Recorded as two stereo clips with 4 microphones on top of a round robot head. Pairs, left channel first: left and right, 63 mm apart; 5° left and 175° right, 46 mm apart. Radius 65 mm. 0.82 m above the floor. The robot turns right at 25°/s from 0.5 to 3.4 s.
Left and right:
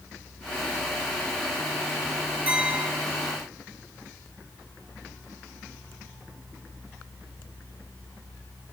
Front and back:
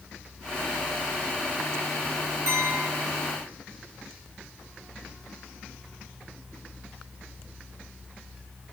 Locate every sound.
2.5 s a clink: 155° right, 2.5 m; by 2.9 s 145° right, 2.5 m